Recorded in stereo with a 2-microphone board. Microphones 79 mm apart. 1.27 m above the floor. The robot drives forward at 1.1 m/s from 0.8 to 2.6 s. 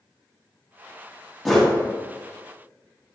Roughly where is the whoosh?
Centre.